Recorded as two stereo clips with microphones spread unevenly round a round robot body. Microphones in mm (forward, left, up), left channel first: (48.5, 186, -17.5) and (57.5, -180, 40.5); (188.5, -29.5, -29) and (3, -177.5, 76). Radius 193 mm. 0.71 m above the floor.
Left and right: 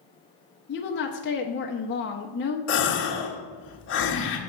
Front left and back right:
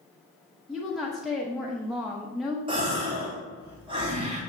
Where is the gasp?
130° left, 0.9 m.